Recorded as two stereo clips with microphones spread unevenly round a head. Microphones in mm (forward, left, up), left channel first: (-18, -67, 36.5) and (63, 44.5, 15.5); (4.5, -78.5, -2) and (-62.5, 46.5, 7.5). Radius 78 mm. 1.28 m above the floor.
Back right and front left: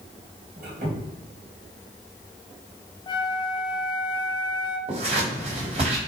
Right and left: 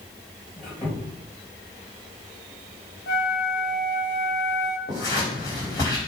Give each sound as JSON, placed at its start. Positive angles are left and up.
{"t": 0.6, "sound": "a squeak", "azimuth_deg": 20, "distance_m": 3.5}
{"t": 3.1, "sound": "a flute", "azimuth_deg": -70, "distance_m": 1.0}
{"t": 4.9, "sound": "scissors", "azimuth_deg": 5, "distance_m": 3.5}